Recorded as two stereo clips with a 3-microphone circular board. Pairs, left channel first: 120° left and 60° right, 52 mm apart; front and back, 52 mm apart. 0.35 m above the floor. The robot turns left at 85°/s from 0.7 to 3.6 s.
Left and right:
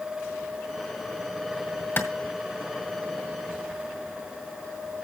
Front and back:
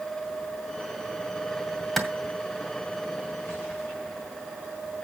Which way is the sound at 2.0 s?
90° left.